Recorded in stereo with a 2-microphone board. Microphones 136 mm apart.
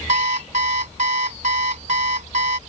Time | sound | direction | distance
0.1 | an alarm clock | 65° right (ahead or behind) | ?